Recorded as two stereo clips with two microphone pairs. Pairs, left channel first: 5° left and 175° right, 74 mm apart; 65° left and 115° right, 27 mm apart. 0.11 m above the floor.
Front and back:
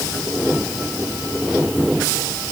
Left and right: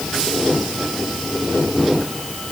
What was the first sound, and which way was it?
Only background noise.